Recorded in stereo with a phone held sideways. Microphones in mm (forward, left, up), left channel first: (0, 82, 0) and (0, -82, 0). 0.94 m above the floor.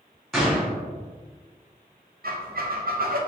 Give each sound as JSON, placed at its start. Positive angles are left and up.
{"t": 0.3, "sound": "a gunshot", "side_deg": 0, "distance_m": 1.2}
{"t": 2.2, "sound": "a squeak", "side_deg": -65, "distance_m": 0.5}